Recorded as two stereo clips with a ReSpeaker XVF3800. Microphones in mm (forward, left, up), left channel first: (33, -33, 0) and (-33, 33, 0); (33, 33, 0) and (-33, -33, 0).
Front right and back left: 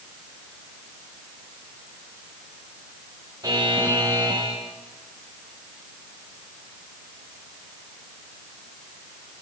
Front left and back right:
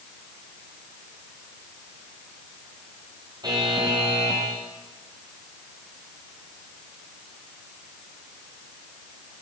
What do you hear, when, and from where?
3.4 s a buzzer: straight behind, 9.5 m